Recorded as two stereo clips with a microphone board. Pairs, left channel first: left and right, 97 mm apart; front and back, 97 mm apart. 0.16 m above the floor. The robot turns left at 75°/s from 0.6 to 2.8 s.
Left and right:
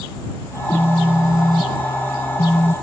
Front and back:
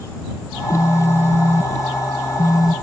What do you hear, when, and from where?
0.5 s a phone buzzing: 110° right; by 2.8 s 90° left